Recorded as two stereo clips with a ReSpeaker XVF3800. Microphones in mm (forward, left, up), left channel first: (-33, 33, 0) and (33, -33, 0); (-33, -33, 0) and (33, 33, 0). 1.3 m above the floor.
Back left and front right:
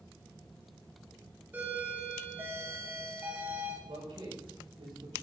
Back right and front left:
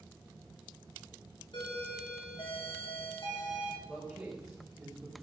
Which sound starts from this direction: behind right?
A doorbell, at 1.5 s.